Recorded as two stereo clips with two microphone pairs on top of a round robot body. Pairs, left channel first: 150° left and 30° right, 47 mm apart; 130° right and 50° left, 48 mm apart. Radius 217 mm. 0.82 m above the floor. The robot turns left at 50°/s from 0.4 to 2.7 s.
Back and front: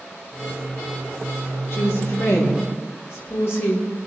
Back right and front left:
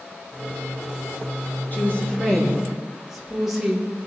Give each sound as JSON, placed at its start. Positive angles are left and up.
{"t": 1.7, "sound": "a woman speaking", "azimuth_deg": 180, "distance_m": 3.0}